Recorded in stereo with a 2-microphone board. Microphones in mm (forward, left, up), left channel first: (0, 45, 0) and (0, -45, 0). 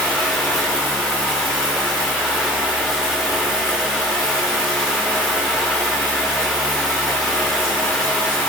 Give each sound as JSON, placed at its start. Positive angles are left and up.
{"t": 0.0, "sound": "running water", "side_deg": 10, "distance_m": 6.0}